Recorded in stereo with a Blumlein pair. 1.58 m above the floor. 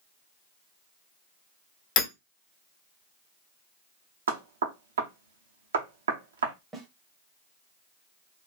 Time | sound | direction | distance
2.0 | hammering | 40° left | 1.3 m
4.3 | knocking | 65° right | 0.7 m
6.7 | a snare drum | 15° right | 0.8 m